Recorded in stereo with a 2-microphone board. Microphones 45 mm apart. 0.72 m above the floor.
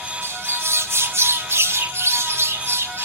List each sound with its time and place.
0.2 s a bird: 70° right (ahead or behind), 0.7 m